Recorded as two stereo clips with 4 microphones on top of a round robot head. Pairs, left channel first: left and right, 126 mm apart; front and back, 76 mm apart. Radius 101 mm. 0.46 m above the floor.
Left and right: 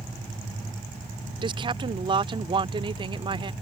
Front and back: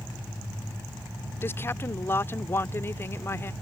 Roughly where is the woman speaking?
Ahead right.